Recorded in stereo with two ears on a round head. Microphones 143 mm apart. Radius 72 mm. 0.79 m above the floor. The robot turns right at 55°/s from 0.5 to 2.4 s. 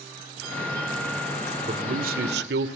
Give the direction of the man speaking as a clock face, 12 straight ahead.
5 o'clock.